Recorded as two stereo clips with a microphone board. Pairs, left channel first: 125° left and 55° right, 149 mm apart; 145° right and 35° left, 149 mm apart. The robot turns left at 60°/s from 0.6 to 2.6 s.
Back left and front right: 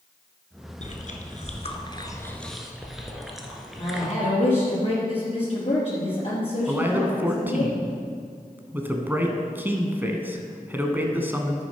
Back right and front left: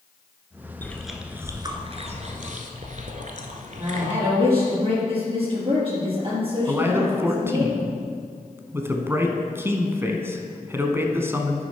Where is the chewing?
140° left, 1.1 m; by 4.1 s 35° left, 1.1 m.